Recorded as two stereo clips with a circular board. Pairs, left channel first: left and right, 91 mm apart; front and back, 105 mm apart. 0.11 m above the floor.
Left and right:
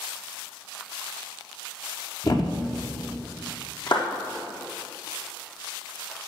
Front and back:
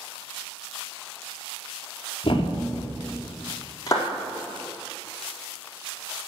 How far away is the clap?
About 4.5 m.